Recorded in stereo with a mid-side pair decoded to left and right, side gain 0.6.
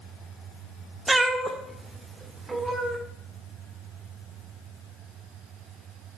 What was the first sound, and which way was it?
A cat meowing, 15° right.